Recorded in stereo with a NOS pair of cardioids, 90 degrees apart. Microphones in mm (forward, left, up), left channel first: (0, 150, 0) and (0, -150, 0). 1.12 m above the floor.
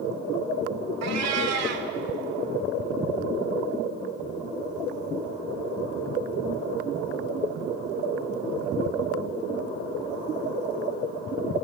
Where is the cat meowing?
60° right, 2 m.